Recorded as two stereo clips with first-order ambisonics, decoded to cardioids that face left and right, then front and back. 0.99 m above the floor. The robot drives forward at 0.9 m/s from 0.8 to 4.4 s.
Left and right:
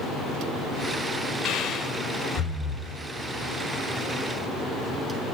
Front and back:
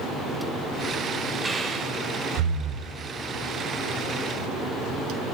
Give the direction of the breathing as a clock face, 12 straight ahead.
9 o'clock.